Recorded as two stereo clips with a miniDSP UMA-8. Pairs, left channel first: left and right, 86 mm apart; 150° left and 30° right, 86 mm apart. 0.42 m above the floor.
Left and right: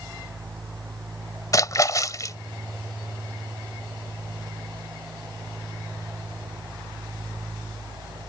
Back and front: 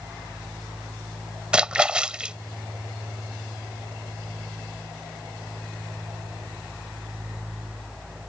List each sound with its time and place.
1.5 s a splash: 50° left